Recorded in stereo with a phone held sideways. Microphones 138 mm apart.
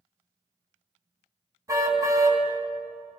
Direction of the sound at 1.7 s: 25° right (ahead or behind).